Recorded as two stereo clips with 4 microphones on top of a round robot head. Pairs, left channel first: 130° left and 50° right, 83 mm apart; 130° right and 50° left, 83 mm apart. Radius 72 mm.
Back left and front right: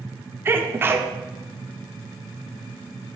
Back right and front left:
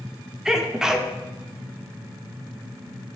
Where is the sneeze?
25° right, 1.0 m.